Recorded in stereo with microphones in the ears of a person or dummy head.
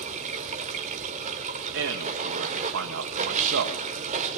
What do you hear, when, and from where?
0.0 s running water: 35° right (ahead or behind), 2.5 m
1.7 s a man speaking: 60° right (ahead or behind), 1.8 m